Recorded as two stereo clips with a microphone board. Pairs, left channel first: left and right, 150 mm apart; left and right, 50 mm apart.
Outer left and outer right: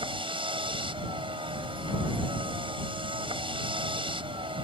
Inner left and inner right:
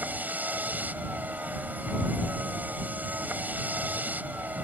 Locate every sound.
0.0 s a vehicle: 35° right (ahead or behind)